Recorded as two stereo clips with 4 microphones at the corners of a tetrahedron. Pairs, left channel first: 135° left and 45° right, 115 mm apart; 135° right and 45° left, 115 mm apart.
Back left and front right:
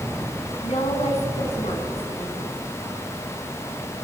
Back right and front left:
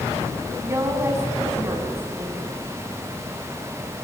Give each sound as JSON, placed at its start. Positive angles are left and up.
{"t": 0.6, "sound": "a woman speaking", "azimuth_deg": 110, "distance_m": 6.0}